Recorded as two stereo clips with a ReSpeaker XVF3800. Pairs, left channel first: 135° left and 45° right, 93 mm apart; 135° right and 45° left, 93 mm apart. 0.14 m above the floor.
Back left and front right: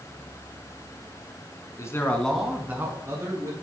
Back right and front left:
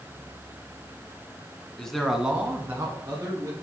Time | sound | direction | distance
1.8 | a man speaking | 150° left | 1.2 m